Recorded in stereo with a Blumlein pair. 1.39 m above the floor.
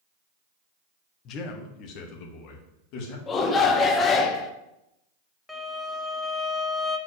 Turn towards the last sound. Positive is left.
turn(degrees=5)